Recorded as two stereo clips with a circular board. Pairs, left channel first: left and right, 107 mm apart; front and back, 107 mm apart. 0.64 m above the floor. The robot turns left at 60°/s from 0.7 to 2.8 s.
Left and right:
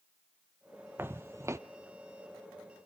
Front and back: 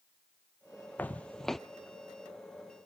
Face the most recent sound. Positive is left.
turn(degrees=-160)